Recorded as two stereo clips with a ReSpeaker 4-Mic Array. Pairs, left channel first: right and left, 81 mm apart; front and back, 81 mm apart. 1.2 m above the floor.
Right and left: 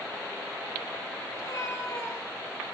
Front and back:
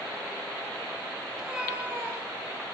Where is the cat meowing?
100° right, 1.3 m; by 2.6 s 155° right, 1.6 m.